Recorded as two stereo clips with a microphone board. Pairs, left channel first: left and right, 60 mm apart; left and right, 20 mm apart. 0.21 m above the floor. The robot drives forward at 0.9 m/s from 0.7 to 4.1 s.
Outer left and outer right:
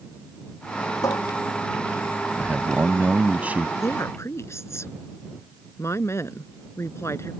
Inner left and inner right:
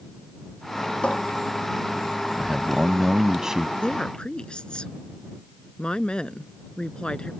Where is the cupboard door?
80° left; by 1.2 s 75° left (ahead or behind).